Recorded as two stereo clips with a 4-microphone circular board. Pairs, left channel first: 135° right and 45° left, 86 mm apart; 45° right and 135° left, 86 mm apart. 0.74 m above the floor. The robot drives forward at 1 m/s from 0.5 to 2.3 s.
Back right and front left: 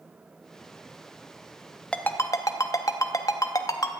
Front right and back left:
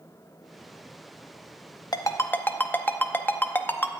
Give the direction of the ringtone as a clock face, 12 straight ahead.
2 o'clock.